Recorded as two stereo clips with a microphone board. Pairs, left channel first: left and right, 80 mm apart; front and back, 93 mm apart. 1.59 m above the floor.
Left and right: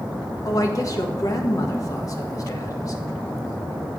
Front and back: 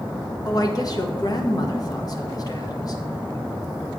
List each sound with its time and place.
0.5 s a woman speaking: 45° left, 1.4 m